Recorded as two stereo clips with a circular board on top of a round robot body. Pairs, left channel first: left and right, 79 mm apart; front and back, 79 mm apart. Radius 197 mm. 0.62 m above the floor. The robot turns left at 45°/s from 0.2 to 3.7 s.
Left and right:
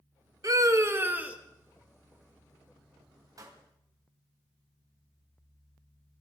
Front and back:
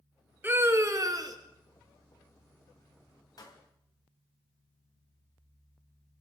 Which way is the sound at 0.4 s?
120° right.